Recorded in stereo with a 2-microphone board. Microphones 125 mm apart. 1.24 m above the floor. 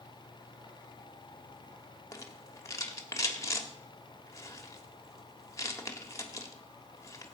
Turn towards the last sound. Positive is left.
turn(degrees=25)  # may be behind; listen again after turning